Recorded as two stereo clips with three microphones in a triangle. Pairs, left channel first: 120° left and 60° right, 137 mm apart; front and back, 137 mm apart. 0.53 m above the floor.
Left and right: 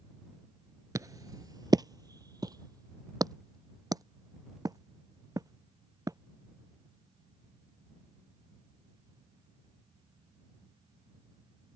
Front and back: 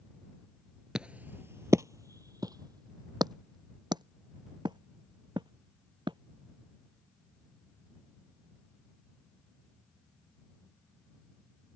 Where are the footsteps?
100° right; by 6.2 s 125° right.